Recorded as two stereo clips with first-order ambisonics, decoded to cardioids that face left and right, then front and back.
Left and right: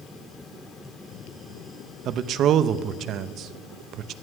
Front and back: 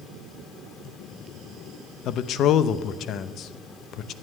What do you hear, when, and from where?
2.0 s a man speaking: 45° right, 0.7 m